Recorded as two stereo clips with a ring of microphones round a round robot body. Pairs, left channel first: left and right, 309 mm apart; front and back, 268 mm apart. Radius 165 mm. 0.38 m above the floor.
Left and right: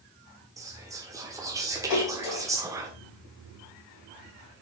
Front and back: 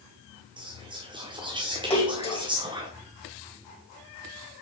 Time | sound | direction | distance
0.6 | whispering | 150° right | 1.3 m
1.9 | a splash | 70° left | 3 m